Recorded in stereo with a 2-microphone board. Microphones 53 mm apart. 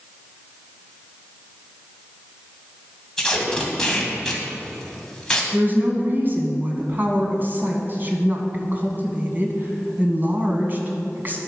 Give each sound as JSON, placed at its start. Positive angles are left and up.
{"t": 3.2, "sound": "tape being pulled", "side_deg": 10, "distance_m": 2.0}
{"t": 5.5, "sound": "a woman speaking", "side_deg": -40, "distance_m": 2.0}